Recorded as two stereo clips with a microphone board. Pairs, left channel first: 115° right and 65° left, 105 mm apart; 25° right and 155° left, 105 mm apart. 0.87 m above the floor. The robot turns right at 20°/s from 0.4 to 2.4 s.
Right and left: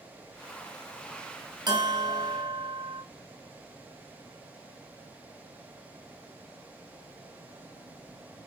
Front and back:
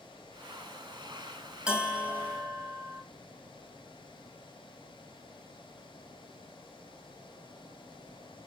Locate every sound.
1.7 s a bell: 80° left, 1.0 m; by 3.0 s 95° left, 1.0 m